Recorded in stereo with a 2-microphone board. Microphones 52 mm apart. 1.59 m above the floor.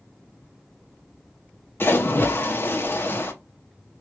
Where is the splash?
45° left (ahead or behind), 0.9 m.